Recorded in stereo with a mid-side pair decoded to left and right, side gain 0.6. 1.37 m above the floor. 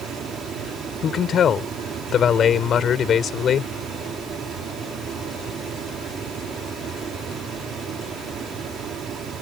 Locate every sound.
0.0 s a fan: 45° right
1.0 s a man speaking: 45° left